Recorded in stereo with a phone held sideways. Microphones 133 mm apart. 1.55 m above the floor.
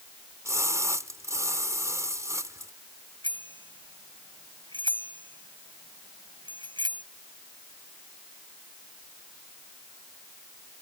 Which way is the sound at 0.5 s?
20° right (ahead or behind).